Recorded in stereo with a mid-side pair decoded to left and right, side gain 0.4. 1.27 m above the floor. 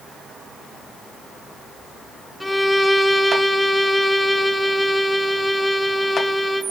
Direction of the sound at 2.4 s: 10° left.